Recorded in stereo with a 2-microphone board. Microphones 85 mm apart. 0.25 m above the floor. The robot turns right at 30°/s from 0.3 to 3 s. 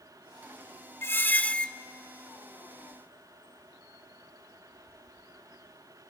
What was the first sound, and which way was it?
A squeak, 30° left (ahead or behind).